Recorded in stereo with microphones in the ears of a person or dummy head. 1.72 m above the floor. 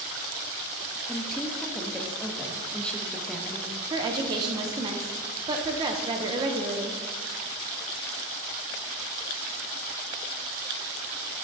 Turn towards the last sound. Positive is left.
turn(degrees=-20)  # may be behind; listen again after turning